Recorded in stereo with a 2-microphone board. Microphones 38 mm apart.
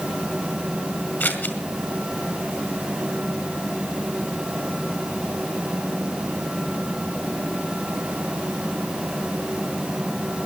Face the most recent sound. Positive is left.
turn(degrees=60)  # may be behind; listen again after turning